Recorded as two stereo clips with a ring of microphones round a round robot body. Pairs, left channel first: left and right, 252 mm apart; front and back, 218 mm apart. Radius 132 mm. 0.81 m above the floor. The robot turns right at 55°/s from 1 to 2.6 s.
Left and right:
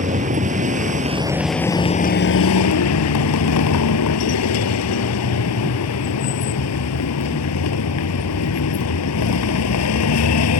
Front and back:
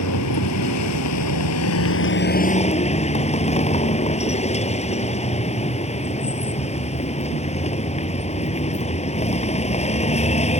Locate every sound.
0.0 s a vehicle: 25° right; by 10.6 s 60° left